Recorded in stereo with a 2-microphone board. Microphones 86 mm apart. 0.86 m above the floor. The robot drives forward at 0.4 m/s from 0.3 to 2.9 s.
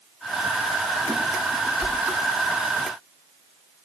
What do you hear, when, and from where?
1.8 s a whoosh: 35° right (ahead or behind), 1.5 m